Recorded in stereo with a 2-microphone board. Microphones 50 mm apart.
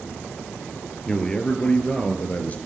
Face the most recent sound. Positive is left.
turn(degrees=35)  # may be behind; listen again after turning